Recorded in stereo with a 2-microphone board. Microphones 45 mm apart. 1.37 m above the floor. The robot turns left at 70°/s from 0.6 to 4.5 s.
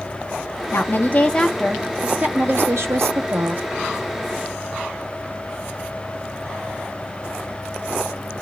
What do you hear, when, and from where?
0.7 s a woman speaking: 65° left, 1.1 m; by 3.7 s 145° right, 1.1 m